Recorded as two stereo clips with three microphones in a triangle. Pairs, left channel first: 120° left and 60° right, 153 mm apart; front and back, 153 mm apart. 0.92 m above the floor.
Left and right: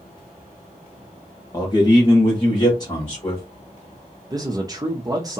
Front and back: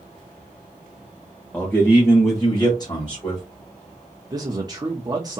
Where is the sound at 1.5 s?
75° left, 0.8 m; by 3.4 s 60° left, 1.7 m.